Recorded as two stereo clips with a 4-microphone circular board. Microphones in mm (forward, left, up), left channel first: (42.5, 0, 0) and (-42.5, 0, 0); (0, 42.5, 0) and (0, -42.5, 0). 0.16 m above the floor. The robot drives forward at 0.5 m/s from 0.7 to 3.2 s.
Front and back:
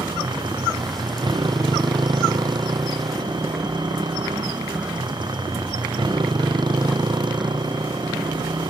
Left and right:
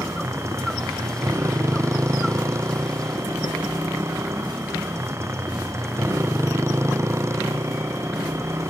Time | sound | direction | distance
0.0 | a motorcycle | 150° right | ?